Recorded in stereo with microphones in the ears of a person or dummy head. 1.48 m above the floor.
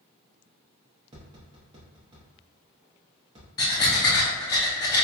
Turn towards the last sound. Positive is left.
turn(degrees=20)  # may be behind; listen again after turning